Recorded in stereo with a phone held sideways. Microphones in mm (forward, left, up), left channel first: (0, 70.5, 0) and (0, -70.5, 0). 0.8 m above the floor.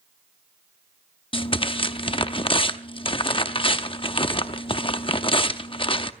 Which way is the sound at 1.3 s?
40° left (ahead or behind).